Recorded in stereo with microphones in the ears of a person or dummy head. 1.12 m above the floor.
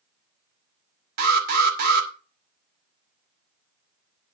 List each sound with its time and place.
1.2 s an alarm: 55° right (ahead or behind), 2.5 m